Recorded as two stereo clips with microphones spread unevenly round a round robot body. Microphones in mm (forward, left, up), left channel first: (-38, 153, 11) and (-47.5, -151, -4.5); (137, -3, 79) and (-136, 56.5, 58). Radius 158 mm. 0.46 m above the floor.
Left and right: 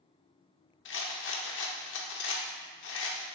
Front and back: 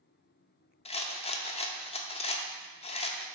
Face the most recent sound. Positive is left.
turn(degrees=55)